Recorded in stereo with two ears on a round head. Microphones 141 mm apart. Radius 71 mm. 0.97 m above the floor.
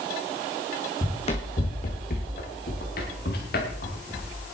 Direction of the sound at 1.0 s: 35° left (ahead or behind).